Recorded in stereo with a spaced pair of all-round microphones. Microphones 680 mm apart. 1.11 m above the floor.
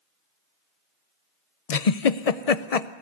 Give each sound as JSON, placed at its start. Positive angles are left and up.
{"t": 1.7, "sound": "a giggle", "side_deg": 60, "distance_m": 0.8}